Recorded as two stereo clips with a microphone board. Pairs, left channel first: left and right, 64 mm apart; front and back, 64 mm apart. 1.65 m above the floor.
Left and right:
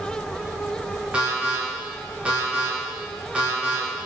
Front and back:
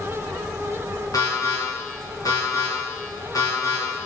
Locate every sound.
1.1 s an alarm: 20° right, 2.5 m